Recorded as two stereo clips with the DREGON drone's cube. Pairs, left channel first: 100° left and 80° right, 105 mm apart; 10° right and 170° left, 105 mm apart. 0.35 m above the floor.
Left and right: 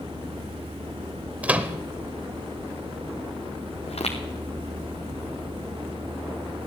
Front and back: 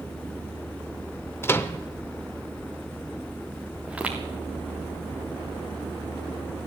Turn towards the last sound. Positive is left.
turn(degrees=90)